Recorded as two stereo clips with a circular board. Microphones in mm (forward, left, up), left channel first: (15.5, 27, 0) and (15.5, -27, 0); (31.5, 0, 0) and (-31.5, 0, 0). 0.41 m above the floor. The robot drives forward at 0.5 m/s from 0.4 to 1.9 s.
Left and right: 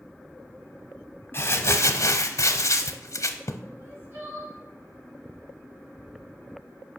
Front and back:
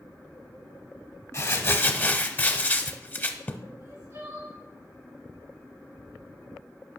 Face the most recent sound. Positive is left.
turn(degrees=-140)